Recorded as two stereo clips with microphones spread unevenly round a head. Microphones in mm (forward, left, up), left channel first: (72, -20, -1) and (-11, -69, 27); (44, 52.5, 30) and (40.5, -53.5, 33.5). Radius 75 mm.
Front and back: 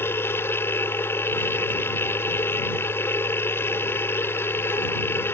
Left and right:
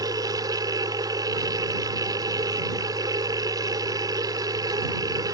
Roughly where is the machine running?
Ahead right.